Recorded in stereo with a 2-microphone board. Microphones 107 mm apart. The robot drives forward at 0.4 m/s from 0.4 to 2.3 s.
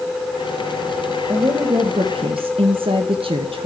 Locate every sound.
1.3 s a woman speaking: 40° right (ahead or behind), 1.0 m; by 3.7 s 60° right (ahead or behind), 0.8 m